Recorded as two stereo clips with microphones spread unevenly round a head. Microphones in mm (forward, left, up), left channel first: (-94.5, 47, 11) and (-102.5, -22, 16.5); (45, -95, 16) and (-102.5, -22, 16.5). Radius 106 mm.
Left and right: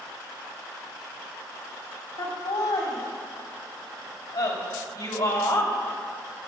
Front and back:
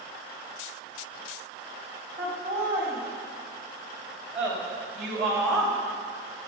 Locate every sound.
2.2 s laughter: 75° left, 4.5 m; by 6.5 s 55° left, 2.5 m